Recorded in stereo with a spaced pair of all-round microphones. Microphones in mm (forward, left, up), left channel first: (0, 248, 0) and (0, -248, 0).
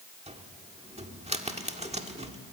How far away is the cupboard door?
About 1.6 m.